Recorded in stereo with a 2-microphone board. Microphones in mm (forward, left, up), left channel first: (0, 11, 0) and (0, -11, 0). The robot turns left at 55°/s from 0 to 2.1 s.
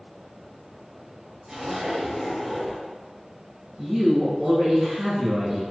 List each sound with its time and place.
1.5 s a zipper: 155° right, 1.2 m; by 2.8 s 170° left, 1.2 m
3.8 s a woman speaking: 35° right (ahead or behind), 2.0 m